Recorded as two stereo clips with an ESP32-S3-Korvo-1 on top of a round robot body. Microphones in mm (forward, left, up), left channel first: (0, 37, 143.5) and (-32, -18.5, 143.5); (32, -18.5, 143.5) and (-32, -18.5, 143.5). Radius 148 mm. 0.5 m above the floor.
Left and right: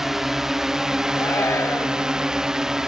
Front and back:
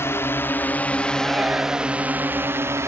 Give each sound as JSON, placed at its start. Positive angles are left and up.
{"t": 0.0, "sound": "a drone", "azimuth_deg": -35}
{"t": 1.1, "sound": "a shout", "azimuth_deg": 110}